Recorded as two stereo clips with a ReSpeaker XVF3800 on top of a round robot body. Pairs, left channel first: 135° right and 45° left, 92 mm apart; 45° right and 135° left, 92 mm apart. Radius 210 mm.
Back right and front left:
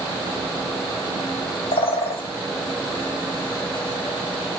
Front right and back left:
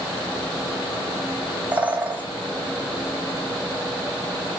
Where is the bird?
150° right, 3.5 m.